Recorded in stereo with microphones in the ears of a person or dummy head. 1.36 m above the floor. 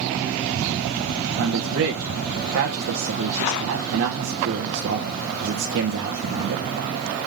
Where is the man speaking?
65° right (ahead or behind), 1.2 m.